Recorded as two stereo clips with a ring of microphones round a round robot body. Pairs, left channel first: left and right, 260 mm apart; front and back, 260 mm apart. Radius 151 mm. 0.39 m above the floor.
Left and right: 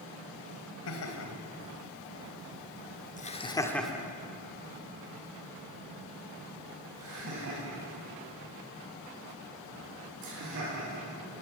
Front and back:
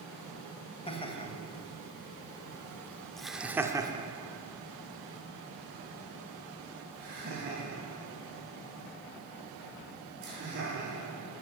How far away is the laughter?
About 3 m.